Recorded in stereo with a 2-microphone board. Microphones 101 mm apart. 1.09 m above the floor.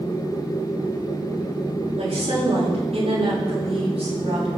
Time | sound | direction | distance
2.0 | a woman speaking | 80° right | 7.5 m